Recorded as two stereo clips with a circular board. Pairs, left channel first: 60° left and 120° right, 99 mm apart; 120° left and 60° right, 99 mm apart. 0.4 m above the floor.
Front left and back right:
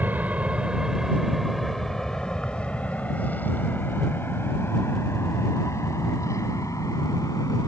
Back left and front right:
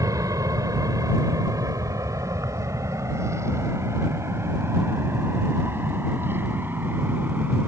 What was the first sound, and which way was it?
An aircraft, 60° right.